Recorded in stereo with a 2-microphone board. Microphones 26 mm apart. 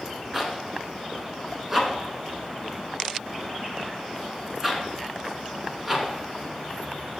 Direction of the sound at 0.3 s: 10° right (ahead or behind).